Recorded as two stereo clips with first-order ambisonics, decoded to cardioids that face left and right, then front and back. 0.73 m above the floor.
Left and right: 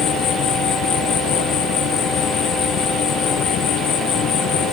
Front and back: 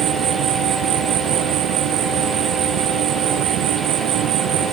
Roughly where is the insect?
Behind left.